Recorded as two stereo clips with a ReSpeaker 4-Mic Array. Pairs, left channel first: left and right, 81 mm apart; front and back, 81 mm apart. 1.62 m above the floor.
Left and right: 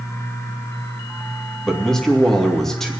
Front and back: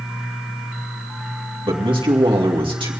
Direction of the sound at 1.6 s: 175° left.